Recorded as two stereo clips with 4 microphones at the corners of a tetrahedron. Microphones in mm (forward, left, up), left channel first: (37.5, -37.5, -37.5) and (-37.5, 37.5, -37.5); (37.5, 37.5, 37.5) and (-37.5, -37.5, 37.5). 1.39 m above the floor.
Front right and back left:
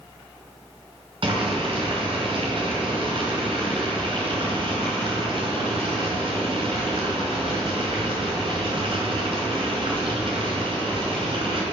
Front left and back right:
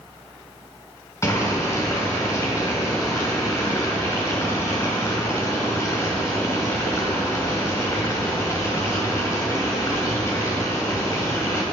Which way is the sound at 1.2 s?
110° left.